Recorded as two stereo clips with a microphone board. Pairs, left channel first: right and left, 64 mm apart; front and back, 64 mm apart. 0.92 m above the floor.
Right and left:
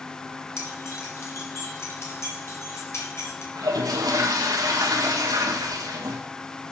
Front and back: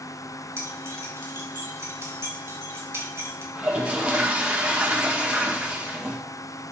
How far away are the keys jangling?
About 2.5 m.